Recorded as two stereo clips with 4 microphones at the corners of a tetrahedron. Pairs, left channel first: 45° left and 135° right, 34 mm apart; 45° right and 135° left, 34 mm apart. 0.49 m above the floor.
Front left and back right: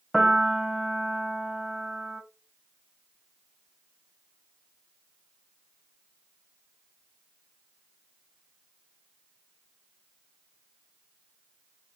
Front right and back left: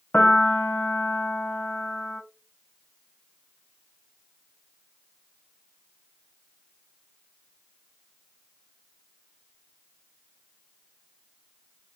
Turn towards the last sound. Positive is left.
turn(degrees=-50)